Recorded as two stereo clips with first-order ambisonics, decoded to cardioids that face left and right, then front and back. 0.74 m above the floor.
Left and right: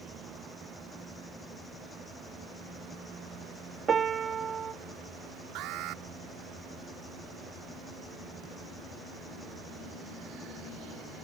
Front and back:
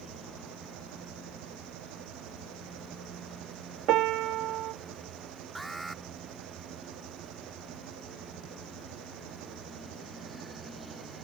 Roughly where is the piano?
Behind right.